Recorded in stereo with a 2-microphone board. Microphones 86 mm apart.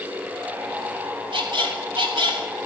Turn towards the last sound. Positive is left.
turn(degrees=-65)  # may be behind; listen again after turning